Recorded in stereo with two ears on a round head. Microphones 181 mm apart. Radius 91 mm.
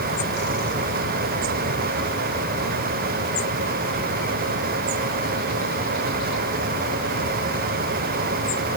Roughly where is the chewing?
I don't hear chewing.